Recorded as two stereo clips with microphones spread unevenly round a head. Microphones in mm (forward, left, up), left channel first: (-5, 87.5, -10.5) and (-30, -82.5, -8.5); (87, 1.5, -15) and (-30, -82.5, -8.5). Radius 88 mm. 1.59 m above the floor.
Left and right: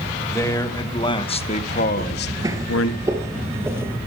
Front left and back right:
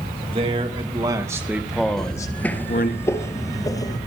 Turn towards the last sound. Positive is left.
turn(degrees=-25)